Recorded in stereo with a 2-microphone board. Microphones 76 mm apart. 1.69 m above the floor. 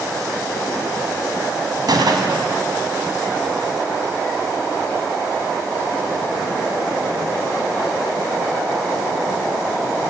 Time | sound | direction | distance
1.9 | a gunshot | 60° right (ahead or behind) | 3 m